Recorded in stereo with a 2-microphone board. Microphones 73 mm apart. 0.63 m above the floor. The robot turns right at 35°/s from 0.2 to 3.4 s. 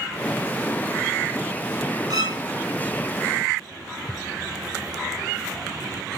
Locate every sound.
2.1 s a violin: 65° right (ahead or behind), 1.7 m; by 2.4 s 55° right (ahead or behind), 1.7 m